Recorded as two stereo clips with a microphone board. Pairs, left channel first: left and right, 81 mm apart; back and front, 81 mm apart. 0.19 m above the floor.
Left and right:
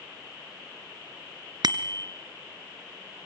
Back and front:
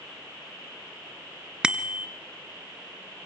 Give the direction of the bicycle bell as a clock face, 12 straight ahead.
3 o'clock.